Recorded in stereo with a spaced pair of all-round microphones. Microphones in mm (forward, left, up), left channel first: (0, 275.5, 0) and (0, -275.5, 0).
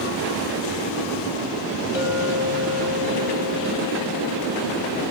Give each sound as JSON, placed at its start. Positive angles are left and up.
{"t": 1.9, "sound": "a clink", "side_deg": 50, "distance_m": 1.4}